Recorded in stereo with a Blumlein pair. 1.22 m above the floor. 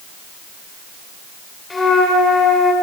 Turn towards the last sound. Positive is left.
turn(degrees=15)